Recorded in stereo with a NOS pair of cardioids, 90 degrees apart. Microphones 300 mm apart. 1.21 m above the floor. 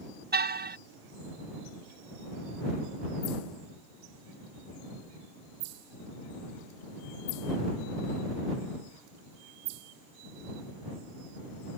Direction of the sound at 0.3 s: 30° right.